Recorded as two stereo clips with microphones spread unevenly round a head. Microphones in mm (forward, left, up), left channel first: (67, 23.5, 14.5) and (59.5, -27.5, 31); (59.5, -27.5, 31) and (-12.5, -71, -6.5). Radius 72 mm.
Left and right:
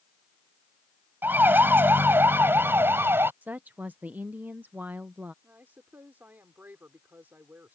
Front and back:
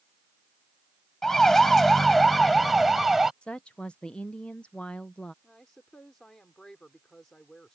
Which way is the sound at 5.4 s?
45° right.